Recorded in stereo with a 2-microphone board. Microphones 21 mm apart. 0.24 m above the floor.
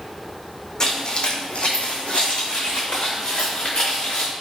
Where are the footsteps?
35° left (ahead or behind), 0.7 m; by 4.3 s 55° left (ahead or behind), 1.7 m.